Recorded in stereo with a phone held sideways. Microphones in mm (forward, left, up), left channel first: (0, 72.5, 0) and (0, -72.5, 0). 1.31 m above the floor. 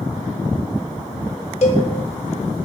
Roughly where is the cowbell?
Left.